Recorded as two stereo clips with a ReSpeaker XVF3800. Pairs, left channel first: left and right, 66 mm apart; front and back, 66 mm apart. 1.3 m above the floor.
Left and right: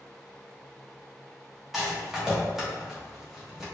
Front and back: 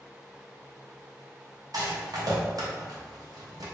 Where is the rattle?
175° right, 0.8 m.